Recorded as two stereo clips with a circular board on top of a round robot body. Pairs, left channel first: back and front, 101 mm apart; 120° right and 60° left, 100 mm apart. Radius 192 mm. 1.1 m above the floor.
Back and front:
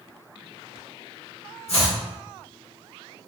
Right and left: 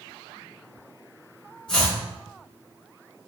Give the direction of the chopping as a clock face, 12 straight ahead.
5 o'clock.